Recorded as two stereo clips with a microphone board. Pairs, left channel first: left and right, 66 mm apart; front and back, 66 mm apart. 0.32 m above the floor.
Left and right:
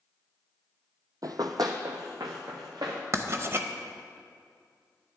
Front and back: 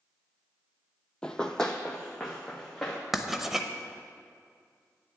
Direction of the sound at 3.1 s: 95° right.